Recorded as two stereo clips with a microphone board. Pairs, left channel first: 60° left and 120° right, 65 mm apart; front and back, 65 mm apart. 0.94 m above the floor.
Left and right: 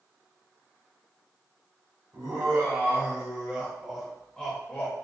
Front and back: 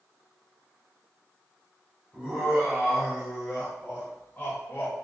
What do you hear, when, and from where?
2.1 s laughter: 110° right, 1.2 m; by 4.9 s 20° left, 1.0 m